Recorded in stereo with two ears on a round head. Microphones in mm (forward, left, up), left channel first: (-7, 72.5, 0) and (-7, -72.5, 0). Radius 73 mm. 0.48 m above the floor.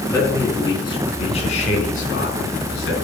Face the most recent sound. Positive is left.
turn(degrees=65)  # may be behind; listen again after turning